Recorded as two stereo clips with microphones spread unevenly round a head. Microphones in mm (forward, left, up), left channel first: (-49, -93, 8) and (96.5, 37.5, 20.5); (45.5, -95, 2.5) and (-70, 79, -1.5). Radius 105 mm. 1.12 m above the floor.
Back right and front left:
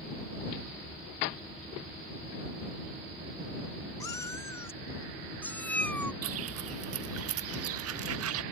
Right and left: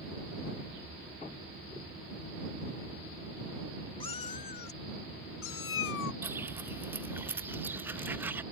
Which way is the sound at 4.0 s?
80° right.